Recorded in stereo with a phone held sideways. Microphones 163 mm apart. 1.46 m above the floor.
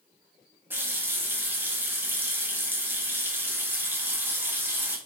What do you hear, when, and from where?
0.7 s a running tap: 10° right (ahead or behind), 0.6 m